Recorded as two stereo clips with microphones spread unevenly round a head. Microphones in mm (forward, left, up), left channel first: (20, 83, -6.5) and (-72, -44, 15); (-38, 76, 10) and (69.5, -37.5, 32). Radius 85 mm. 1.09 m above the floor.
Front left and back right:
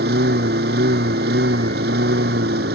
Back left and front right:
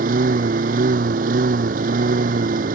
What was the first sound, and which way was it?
A lawn mower, 90° right.